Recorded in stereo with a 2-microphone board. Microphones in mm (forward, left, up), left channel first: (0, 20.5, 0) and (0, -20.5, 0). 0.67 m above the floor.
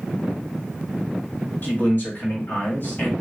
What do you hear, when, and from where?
1.6 s a man speaking: 50° left (ahead or behind), 1.2 m